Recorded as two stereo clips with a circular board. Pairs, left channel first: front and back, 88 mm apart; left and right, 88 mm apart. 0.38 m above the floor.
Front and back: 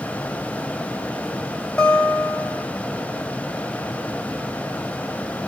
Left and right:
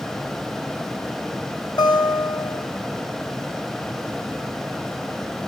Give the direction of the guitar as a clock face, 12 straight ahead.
10 o'clock.